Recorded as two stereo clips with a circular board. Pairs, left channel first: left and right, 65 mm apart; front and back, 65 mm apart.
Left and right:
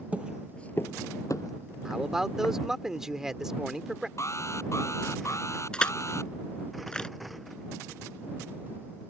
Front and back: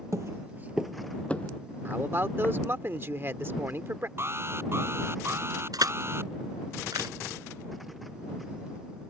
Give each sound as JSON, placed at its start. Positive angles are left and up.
{"t": 0.1, "sound": "footsteps", "azimuth_deg": -155}
{"t": 1.9, "sound": "a man speaking", "azimuth_deg": -165}
{"t": 4.2, "sound": "an alarm", "azimuth_deg": 130}
{"t": 5.7, "sound": "crushing", "azimuth_deg": 165}